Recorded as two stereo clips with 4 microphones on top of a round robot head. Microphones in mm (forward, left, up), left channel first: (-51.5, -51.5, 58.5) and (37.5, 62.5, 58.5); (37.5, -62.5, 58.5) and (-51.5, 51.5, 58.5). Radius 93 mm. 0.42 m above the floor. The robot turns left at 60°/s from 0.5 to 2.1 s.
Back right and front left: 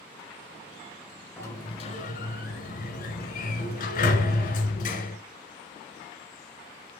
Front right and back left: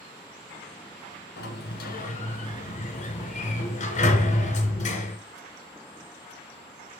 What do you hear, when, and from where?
1.4 s a sliding door: 50° right, 1.9 m; by 5.2 s 95° right, 1.9 m